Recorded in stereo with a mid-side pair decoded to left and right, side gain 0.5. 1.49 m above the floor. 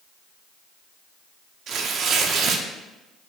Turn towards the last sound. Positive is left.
turn(degrees=-65)